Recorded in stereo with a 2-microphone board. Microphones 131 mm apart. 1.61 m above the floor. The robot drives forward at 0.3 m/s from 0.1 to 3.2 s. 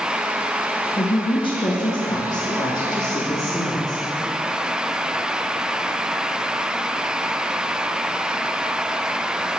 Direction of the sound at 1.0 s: 40° left (ahead or behind).